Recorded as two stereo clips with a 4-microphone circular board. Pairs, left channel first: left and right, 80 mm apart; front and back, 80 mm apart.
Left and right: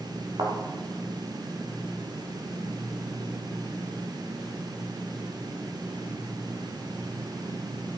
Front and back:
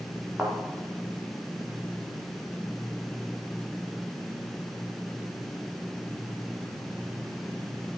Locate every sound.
0.4 s a thud: 110° right, 6 m